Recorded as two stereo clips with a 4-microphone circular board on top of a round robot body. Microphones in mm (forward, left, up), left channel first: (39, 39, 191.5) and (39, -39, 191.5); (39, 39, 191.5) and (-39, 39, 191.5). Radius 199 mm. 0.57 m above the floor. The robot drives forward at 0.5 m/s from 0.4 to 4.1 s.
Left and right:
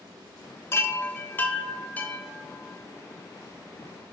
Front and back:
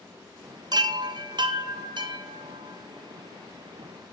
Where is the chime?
145° left, 0.9 m; by 4.1 s 170° left, 2.5 m.